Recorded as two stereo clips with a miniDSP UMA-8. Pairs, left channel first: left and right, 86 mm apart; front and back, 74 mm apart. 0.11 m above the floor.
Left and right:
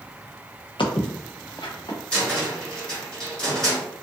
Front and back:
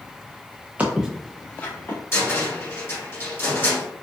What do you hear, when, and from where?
0.8 s footsteps: 110° left, 0.8 m; by 2.0 s 55° left, 1.2 m
2.1 s a cupboard door: 20° left, 1.4 m